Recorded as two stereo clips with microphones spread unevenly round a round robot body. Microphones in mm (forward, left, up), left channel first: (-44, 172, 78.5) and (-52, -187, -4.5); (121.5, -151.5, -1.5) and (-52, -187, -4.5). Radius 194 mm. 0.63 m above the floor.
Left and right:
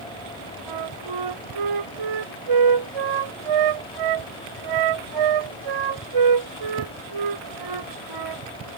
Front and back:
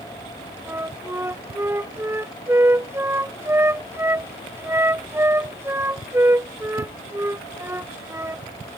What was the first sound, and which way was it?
A flute, 95° right.